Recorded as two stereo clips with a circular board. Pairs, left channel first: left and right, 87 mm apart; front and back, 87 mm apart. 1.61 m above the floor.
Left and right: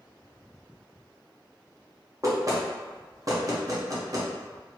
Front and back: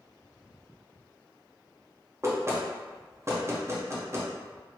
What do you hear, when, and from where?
2.2 s knocking: 130° right, 0.9 m